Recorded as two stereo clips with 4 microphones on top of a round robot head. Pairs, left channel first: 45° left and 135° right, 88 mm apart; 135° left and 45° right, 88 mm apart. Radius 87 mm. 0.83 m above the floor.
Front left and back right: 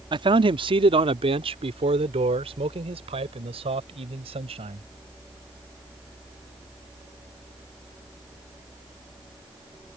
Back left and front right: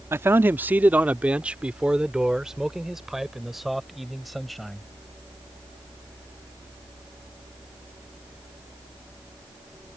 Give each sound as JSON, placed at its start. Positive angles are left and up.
{"t": 0.1, "sound": "a man speaking", "azimuth_deg": -110}